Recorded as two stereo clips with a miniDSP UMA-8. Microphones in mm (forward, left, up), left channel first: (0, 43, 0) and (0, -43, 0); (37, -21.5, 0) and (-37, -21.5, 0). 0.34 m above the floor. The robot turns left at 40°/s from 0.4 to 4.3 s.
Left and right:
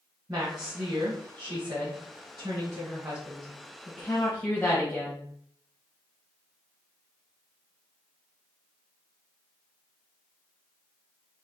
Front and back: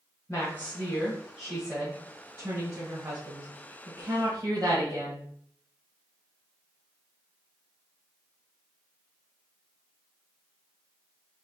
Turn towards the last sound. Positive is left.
turn(degrees=155)